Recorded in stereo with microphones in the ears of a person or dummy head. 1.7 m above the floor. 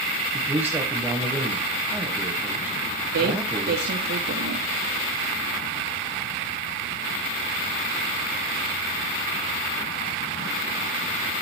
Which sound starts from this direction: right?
A woman speaking, at 3.1 s.